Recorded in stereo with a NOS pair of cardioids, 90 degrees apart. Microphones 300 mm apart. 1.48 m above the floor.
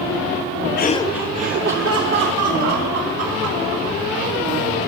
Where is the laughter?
35° left, 0.5 m; by 4.0 s 70° right, 2.5 m.